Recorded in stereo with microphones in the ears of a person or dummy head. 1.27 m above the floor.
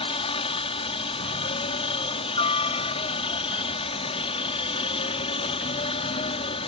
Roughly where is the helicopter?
Left.